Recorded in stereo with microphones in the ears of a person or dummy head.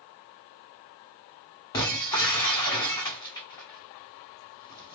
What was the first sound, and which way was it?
Breaking glass, 20° left (ahead or behind).